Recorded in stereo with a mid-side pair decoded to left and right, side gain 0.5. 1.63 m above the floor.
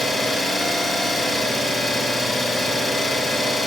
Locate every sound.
0.0 s an engine running: 5° right, 7 m